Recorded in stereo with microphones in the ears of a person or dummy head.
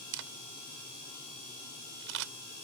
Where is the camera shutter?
70° right (ahead or behind).